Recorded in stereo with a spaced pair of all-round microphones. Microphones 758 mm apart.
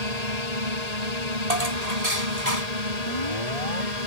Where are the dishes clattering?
55° right (ahead or behind).